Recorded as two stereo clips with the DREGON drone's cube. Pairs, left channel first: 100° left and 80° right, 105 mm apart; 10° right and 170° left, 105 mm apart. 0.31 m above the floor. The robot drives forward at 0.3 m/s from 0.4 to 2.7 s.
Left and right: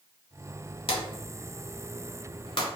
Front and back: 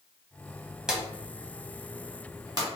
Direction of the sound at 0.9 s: 90° left.